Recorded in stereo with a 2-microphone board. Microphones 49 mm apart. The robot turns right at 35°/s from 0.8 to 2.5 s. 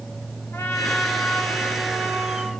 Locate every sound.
0.5 s a trumpet: 70° left, 2.5 m; by 2.5 s 130° left, 2.5 m